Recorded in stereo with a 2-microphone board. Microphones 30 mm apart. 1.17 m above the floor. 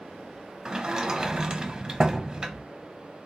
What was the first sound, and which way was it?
A sliding door, 25° right (ahead or behind).